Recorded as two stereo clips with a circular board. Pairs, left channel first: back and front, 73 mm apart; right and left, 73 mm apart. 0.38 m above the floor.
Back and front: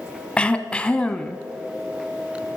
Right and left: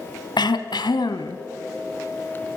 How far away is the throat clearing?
About 0.9 m.